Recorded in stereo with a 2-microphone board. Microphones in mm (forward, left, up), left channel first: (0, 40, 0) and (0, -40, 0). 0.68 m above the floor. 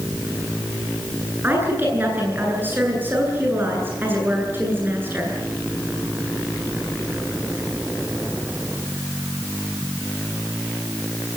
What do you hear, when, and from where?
1.4 s a woman speaking: 25° right (ahead or behind), 10 m